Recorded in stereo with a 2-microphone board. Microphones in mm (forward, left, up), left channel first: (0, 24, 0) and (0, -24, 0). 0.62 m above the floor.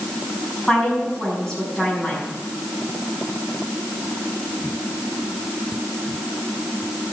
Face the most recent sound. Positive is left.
turn(degrees=10)  # may be behind; listen again after turning